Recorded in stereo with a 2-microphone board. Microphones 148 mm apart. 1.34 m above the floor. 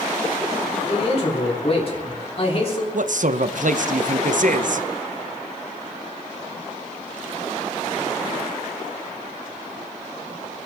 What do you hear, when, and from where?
0.9 s a man speaking: 45° left (ahead or behind), 3.5 m
2.9 s a man speaking: 65° right (ahead or behind), 0.9 m